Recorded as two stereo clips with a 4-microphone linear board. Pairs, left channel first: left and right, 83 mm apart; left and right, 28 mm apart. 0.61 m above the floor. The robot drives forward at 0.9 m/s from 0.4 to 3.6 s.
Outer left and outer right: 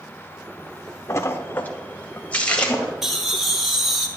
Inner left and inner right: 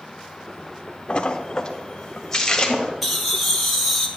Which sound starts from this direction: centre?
Laughter, at 3.0 s.